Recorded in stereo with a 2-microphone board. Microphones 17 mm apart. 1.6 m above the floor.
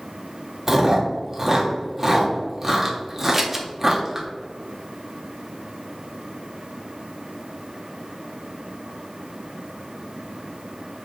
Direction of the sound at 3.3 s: 20° right (ahead or behind).